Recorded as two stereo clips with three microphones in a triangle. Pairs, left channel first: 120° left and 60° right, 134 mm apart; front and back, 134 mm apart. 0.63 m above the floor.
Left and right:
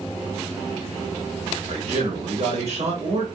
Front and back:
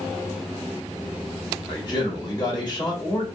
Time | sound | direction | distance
1.7 | a man speaking | 50° right | 1.0 m